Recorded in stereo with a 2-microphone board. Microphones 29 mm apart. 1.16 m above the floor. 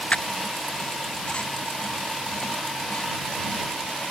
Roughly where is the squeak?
Left.